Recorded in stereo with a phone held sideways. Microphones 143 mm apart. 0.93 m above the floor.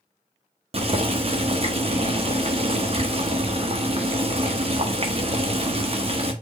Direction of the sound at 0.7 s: 45° right (ahead or behind).